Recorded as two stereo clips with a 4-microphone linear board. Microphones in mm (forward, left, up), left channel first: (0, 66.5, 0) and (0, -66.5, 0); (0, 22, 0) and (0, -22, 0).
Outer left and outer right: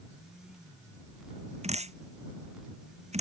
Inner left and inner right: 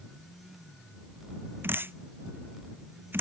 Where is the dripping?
55° right (ahead or behind).